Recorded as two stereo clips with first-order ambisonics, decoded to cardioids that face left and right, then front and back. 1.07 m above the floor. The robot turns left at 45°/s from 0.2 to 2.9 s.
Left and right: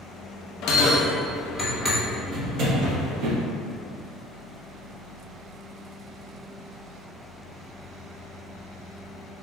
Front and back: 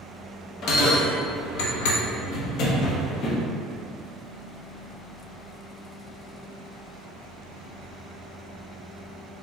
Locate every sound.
0.6 s a bell: 50° left, 0.6 m; by 3.4 s 50° right, 0.6 m